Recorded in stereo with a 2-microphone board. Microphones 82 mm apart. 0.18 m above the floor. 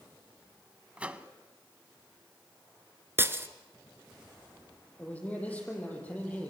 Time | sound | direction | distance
1.0 | a microwave | 15° right (ahead or behind) | 0.9 m
3.2 | breaking glass | 30° right (ahead or behind) | 1.3 m
5.0 | a man speaking | 15° left (ahead or behind) | 7.5 m